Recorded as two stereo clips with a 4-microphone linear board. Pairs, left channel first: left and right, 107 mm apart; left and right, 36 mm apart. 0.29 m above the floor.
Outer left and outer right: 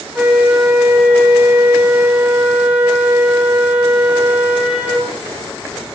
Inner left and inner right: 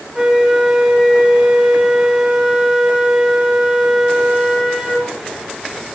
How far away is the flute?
About 4.5 m.